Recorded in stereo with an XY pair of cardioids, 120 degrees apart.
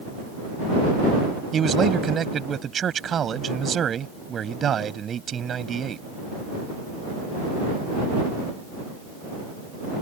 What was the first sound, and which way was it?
A man speaking, 40° right.